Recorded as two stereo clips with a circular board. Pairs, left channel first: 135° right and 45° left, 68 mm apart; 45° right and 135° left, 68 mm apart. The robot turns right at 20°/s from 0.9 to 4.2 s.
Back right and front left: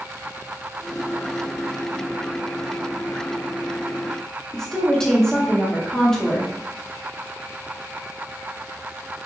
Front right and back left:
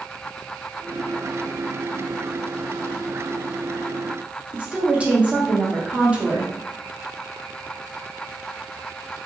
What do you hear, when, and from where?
4.5 s a woman speaking: 165° left, 0.6 m